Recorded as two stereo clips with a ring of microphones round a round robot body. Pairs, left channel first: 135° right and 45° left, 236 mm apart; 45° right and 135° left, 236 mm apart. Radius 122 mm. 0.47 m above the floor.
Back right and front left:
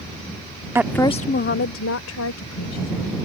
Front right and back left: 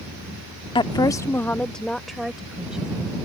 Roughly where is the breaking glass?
I don't hear breaking glass.